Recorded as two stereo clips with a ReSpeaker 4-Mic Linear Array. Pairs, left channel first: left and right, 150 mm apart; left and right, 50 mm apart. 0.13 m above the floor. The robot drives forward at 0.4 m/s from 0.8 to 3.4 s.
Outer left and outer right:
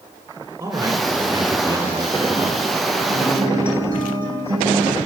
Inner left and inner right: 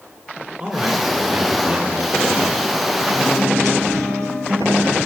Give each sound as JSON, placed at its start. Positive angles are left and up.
{"t": 0.6, "sound": "a man speaking", "side_deg": -20, "distance_m": 1.2}
{"t": 3.1, "sound": "a guitar", "side_deg": -75, "distance_m": 4.0}